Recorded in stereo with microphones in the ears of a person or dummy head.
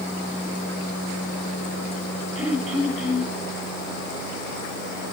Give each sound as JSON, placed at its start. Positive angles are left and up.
{"t": 2.4, "sound": "throat clearing", "side_deg": -5, "distance_m": 7.0}